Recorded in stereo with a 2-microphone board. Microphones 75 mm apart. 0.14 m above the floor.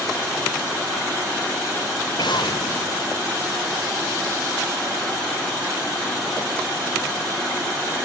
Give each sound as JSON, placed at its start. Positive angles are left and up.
{"t": 2.2, "sound": "an explosion", "side_deg": 85}